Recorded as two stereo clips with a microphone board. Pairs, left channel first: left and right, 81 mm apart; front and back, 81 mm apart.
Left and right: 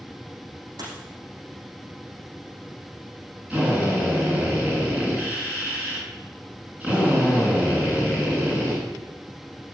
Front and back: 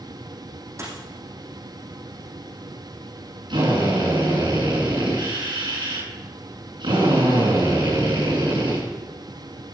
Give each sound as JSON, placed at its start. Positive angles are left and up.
{"t": 0.8, "sound": "a dropped coin", "azimuth_deg": -125, "distance_m": 6.5}
{"t": 3.5, "sound": "a drill", "azimuth_deg": -160, "distance_m": 8.0}